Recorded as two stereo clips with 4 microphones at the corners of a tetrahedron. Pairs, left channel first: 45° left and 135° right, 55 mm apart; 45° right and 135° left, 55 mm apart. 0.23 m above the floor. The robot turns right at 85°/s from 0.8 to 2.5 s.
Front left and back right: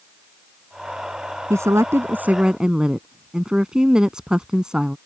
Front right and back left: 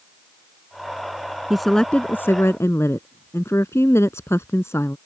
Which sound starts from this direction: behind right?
A woman speaking, at 1.5 s.